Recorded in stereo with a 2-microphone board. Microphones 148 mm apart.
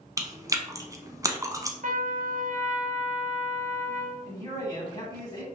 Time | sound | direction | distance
0.2 | chewing | 20° right (ahead or behind) | 0.6 m
1.8 | a trumpet | 60° right (ahead or behind) | 0.5 m
4.3 | a man speaking | 25° left (ahead or behind) | 1.9 m